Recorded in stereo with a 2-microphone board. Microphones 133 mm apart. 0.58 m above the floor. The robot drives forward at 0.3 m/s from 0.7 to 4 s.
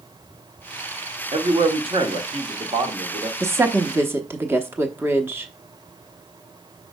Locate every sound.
1.3 s a man speaking: 50° right (ahead or behind), 1.1 m; by 3.3 s 40° right (ahead or behind), 1.4 m
3.4 s a woman speaking: 20° right (ahead or behind), 0.8 m; by 5.5 s 15° right (ahead or behind), 0.9 m